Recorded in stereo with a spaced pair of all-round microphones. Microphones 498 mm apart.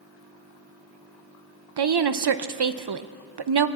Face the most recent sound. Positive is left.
turn(degrees=-55)  # may be behind; listen again after turning